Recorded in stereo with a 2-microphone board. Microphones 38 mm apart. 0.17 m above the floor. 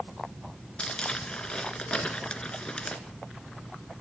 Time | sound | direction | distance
0.8 | crumpling | 25° left (ahead or behind) | 1.8 m